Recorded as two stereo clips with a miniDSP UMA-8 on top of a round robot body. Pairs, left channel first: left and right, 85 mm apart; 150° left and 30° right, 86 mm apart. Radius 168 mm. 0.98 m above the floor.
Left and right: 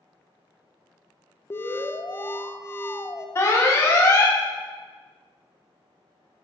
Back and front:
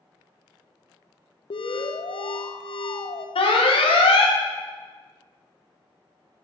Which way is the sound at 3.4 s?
150° left.